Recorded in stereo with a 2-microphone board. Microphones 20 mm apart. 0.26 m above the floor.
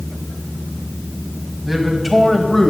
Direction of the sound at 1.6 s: 10° right (ahead or behind).